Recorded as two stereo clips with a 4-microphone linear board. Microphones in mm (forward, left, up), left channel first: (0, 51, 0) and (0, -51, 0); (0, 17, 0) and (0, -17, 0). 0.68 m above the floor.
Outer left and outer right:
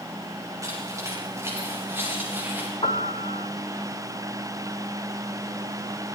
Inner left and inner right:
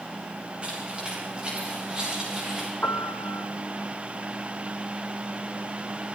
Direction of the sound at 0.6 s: 30° right (ahead or behind).